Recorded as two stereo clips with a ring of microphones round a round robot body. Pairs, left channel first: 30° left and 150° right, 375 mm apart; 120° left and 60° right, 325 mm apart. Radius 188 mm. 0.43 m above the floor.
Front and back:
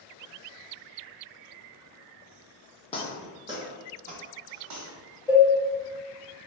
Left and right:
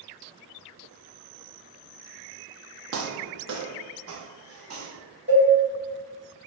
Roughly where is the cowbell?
Ahead right.